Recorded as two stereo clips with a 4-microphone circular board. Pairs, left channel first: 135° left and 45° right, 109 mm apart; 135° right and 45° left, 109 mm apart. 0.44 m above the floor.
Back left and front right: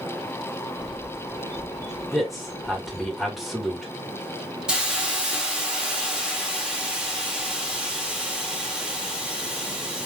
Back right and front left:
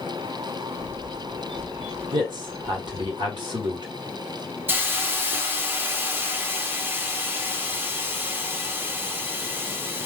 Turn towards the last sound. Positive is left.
turn(degrees=20)